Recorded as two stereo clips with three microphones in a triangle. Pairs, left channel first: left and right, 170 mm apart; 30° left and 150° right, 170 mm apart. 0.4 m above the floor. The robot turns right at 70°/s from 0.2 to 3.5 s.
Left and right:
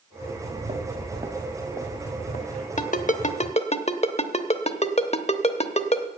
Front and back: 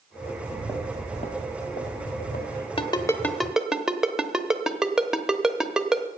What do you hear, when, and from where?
0.2 s footsteps: 75° right, 2.5 m; by 2.7 s 65° left, 2.5 m
2.8 s a ringtone: 75° left, 0.9 m; by 6.1 s 125° left, 0.9 m